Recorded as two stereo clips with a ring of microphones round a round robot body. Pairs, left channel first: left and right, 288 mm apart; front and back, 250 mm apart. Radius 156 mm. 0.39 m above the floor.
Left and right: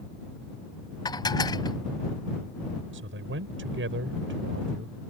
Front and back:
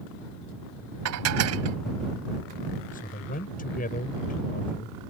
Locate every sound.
1.1 s dishes clattering: 165° left
2.9 s a man speaking: 50° right